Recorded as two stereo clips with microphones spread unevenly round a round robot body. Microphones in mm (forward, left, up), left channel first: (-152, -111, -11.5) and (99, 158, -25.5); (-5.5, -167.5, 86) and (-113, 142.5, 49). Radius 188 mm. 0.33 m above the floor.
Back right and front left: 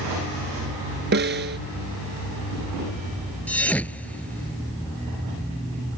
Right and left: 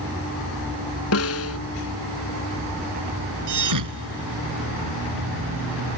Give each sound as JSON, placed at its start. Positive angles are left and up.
{"t": 1.1, "sound": "a snare drum", "azimuth_deg": -15}
{"t": 3.5, "sound": "a thud", "azimuth_deg": 140}